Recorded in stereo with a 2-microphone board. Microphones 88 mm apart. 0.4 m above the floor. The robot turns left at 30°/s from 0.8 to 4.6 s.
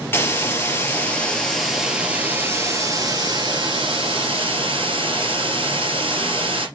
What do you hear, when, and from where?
0.1 s a hiss: 25° left, 3 m; by 6.7 s 90° right, 3 m